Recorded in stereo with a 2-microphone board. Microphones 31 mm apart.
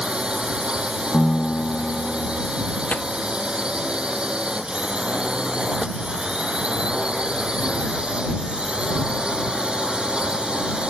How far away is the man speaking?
I don't hear a man speaking.